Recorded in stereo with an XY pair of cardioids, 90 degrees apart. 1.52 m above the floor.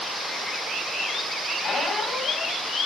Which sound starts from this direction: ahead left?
A squeak, at 1.6 s.